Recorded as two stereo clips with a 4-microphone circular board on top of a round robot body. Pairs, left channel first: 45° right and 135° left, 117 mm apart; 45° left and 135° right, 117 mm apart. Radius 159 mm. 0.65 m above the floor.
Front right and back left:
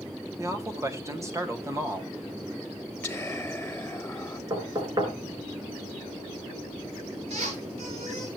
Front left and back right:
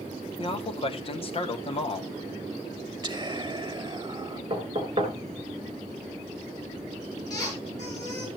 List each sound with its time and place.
0.4 s a man speaking: 75° left, 2 m
3.0 s whispering: 110° right, 1.3 m
4.5 s knocking: 175° right, 3.5 m
7.3 s a squeak: 105° left, 6.5 m